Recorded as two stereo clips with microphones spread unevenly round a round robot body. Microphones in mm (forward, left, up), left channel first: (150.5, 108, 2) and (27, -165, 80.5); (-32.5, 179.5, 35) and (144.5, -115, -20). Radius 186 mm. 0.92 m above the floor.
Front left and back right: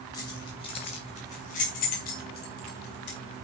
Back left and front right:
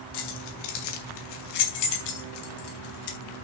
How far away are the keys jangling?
About 3.5 m.